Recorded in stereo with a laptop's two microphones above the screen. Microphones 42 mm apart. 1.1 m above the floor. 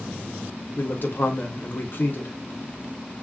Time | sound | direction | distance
0.8 | a man speaking | 50° left (ahead or behind) | 0.7 m